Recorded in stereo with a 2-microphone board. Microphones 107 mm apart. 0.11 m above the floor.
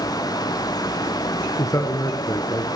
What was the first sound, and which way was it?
A man speaking, 35° left (ahead or behind).